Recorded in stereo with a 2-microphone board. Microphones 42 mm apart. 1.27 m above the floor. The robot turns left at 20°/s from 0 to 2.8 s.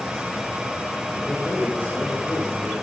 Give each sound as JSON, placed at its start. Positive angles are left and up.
{"t": 1.2, "sound": "a man speaking", "azimuth_deg": 145, "distance_m": 6.0}